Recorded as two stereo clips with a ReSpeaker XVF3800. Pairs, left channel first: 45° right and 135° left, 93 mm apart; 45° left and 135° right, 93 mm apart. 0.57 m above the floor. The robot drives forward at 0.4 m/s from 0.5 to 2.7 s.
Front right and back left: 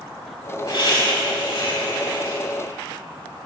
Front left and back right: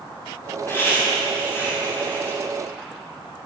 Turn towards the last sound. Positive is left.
turn(degrees=-20)